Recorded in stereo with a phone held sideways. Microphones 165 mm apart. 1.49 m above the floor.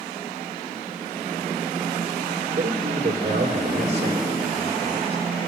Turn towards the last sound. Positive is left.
turn(degrees=-40)  # may be behind; listen again after turning